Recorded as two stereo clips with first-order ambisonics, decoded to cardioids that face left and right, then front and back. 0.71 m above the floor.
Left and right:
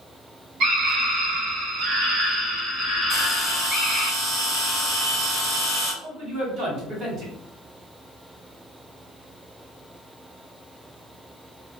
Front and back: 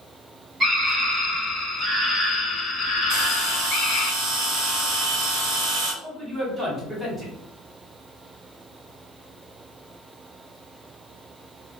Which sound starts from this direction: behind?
A bell, at 3.1 s.